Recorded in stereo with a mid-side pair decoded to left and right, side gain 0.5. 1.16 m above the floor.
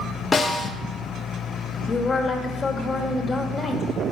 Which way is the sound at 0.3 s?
25° left.